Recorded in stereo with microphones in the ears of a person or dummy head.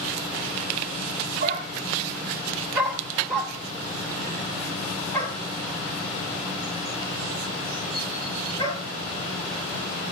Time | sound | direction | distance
1.4 | a dog barking | 40° right (ahead or behind) | 1.5 m